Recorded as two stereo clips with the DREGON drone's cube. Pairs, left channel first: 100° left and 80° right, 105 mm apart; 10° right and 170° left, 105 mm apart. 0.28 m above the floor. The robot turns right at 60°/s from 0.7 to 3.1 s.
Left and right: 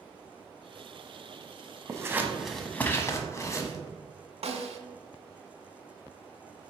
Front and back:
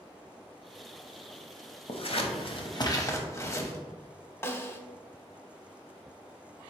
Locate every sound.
1.9 s scissors: 25° right, 0.6 m; by 3.8 s 45° left, 0.6 m
4.4 s a snare drum: 80° right, 0.5 m